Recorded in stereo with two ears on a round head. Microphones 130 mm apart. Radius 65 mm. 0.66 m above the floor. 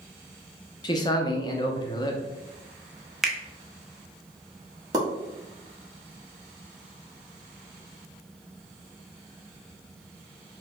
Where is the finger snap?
Centre (ahead or behind), 0.6 m.